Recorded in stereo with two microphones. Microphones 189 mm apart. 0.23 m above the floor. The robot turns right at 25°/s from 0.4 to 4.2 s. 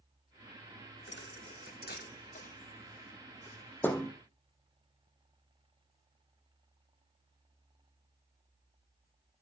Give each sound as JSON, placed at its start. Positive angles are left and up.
{"t": 1.1, "sound": "a thud", "side_deg": 80, "distance_m": 1.0}